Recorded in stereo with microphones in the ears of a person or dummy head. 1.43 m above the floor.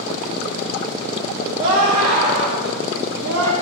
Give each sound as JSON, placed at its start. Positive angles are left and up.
{"t": 1.6, "sound": "a scream", "side_deg": -25, "distance_m": 3.0}